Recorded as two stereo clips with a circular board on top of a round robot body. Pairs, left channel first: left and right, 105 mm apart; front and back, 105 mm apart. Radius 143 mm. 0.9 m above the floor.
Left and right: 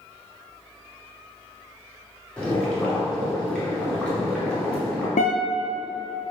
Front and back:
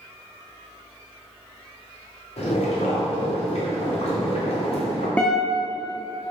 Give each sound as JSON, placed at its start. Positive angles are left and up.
{"t": 2.4, "sound": "boiling", "azimuth_deg": 10, "distance_m": 2.5}
{"t": 5.2, "sound": "a guitar", "azimuth_deg": 80, "distance_m": 0.9}